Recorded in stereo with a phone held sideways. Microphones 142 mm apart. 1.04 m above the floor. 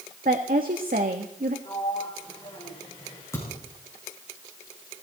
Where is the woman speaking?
80° right, 1.5 m.